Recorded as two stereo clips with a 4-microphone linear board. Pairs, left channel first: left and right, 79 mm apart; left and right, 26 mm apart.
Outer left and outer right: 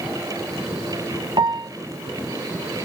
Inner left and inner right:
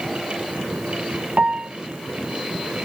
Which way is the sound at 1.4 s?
60° right (ahead or behind).